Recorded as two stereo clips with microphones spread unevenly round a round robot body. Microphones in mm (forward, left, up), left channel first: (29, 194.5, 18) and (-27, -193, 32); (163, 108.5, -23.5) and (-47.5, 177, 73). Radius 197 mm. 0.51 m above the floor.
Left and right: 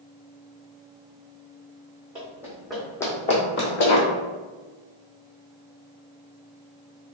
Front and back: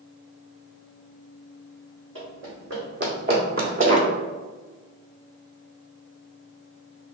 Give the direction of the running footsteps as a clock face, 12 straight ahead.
6 o'clock.